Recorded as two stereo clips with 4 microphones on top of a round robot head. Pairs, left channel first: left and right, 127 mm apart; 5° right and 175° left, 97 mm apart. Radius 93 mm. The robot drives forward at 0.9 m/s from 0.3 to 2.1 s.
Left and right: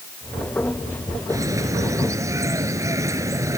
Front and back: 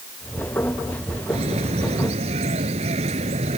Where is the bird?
155° right.